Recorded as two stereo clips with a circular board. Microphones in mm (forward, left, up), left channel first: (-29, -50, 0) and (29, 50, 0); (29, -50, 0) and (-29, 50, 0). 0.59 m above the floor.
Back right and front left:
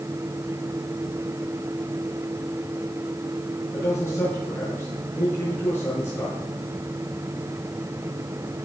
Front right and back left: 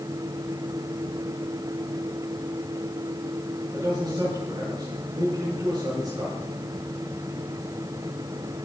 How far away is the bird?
No bird in this recording.